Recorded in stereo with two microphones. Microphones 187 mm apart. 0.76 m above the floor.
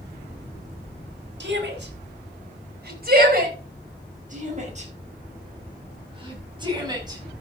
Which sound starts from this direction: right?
A shout, at 1.4 s.